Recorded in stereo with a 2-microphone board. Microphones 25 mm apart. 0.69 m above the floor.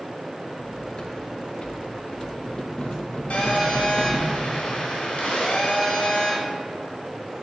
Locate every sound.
0.6 s cutlery clinking: 40° left (ahead or behind), 0.6 m
3.3 s a phone buzzing: 60° left (ahead or behind), 1.5 m